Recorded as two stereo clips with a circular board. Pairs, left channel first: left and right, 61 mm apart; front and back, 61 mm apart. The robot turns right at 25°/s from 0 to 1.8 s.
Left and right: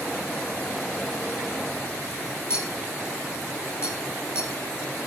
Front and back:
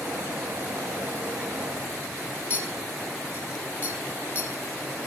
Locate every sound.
2.5 s a clink: 55° left, 2 m